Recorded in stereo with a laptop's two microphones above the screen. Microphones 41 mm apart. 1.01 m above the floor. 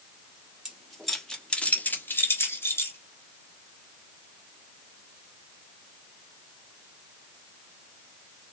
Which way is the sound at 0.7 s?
10° right (ahead or behind).